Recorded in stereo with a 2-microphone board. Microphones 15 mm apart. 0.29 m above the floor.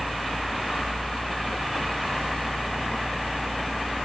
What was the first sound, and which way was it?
Only background noise.